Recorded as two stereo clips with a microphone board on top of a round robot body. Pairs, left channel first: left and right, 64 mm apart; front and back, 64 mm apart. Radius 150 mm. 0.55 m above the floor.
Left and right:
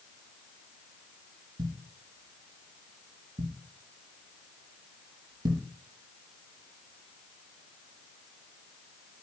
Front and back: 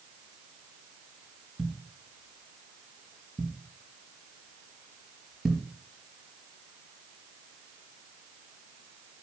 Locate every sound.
1.6 s a thud: 100° right, 4 m